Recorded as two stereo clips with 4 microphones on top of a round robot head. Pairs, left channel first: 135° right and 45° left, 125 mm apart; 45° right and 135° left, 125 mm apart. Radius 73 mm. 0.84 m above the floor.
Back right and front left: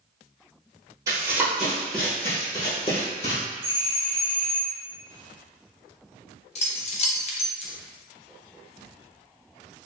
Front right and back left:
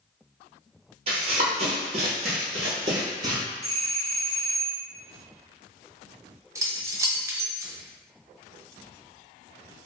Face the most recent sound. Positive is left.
turn(degrees=-160)